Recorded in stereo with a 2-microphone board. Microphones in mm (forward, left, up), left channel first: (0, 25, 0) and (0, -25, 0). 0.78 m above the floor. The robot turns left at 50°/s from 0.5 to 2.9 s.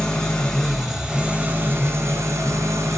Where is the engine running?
20° left, 1.2 m; by 3.0 s 100° right, 1.2 m.